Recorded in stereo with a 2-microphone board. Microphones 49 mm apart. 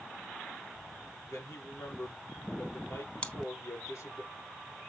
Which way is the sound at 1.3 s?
80° left.